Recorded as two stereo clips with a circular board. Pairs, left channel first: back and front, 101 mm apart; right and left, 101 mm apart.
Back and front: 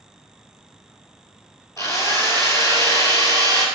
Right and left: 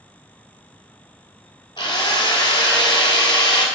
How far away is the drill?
About 1.3 m.